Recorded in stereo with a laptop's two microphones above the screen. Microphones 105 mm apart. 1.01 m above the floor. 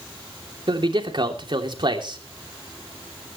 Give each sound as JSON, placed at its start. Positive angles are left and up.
{"t": 0.7, "sound": "a man speaking", "side_deg": -50, "distance_m": 3.0}